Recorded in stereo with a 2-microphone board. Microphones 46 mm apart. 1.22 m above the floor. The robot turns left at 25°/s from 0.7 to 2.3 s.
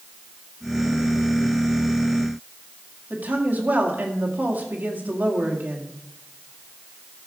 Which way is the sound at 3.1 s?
40° right (ahead or behind).